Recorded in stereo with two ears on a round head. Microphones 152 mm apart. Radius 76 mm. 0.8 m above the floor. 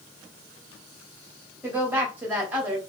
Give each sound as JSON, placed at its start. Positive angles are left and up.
{"t": 1.6, "sound": "a woman speaking", "side_deg": -10, "distance_m": 1.7}